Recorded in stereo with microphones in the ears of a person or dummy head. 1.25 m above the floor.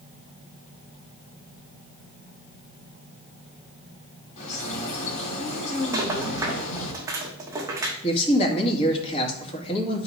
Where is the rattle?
10° right (ahead or behind), 1.2 m.